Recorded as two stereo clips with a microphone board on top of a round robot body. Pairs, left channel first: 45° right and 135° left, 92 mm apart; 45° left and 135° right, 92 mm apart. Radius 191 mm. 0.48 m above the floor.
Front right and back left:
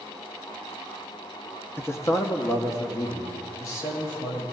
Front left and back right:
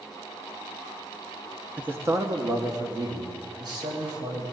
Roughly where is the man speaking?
Right.